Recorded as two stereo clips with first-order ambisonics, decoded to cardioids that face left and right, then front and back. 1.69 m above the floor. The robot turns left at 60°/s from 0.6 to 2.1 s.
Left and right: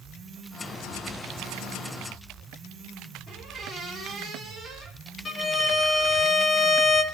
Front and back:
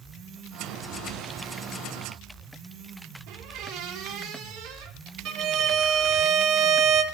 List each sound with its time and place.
3.3 s a squeak: 175° right, 2.5 m
5.2 s a violin: 155° left, 1.3 m